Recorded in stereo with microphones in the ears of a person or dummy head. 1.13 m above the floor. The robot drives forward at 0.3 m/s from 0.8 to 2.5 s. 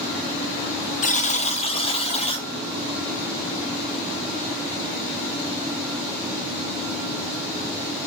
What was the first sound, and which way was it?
A buzzer, 40° left (ahead or behind).